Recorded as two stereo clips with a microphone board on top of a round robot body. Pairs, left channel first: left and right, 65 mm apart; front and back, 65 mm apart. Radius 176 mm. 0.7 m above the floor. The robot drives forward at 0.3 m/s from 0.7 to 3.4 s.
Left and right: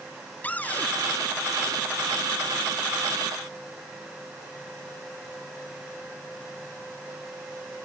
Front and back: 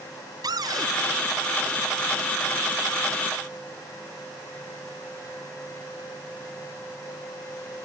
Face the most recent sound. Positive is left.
turn(degrees=160)